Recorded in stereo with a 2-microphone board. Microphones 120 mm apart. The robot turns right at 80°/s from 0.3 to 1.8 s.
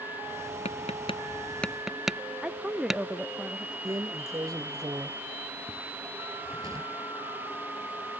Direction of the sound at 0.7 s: 75° left (ahead or behind).